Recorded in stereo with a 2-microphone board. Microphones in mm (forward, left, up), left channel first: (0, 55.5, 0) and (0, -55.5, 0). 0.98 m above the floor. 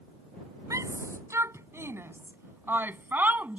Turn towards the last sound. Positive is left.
turn(degrees=-15)  # may be behind; listen again after turning